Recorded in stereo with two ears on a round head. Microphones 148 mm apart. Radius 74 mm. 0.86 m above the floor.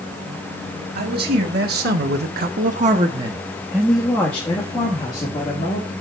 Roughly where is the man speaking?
Right.